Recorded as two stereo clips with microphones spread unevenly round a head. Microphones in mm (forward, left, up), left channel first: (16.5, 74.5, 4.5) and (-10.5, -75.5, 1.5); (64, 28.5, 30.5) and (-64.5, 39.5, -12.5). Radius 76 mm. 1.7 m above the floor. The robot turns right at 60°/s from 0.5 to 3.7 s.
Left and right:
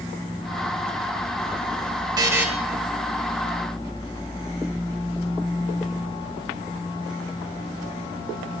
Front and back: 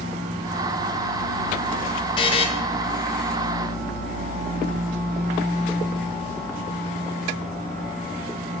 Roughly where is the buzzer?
Ahead right.